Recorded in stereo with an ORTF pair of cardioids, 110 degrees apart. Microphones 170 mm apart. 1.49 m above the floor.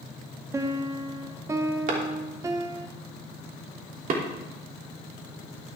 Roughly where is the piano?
Ahead.